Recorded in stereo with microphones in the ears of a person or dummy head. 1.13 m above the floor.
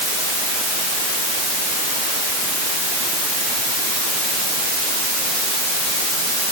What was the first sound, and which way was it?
Only background noise.